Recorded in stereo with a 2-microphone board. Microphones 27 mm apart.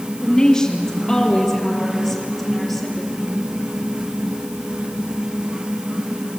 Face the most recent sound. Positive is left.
turn(degrees=-5)  # may be behind; listen again after turning